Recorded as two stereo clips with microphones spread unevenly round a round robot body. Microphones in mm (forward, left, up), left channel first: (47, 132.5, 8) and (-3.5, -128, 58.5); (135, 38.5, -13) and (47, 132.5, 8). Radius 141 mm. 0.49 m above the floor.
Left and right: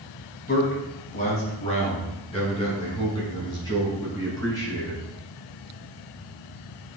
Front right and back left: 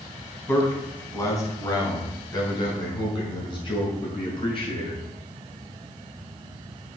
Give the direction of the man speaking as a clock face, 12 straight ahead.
11 o'clock.